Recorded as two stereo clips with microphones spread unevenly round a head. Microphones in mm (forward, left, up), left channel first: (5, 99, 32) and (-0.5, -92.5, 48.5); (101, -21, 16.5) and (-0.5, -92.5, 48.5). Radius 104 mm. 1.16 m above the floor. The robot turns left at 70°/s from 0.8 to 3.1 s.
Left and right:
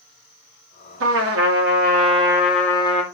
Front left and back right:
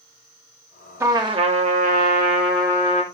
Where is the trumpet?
75° right, 3 m; by 3.0 s 145° left, 3 m.